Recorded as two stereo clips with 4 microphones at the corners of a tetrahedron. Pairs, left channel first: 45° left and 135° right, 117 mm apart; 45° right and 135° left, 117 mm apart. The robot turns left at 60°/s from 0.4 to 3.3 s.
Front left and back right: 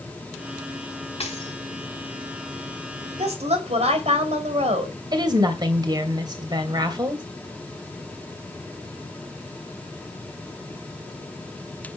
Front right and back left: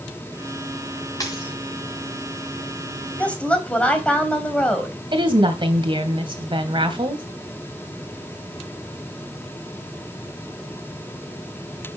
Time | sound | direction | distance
1.2 | a dropped coin | 10° left | 5 m
3.2 | a woman speaking | 120° right | 3 m
5.1 | a woman speaking | 175° left | 2.5 m